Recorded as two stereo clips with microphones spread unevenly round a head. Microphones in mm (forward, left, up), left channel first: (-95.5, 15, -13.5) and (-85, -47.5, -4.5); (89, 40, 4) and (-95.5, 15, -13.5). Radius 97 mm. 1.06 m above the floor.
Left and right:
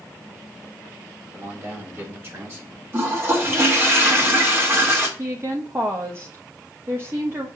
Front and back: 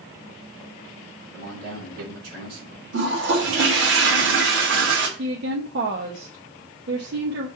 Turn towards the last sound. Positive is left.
turn(degrees=-135)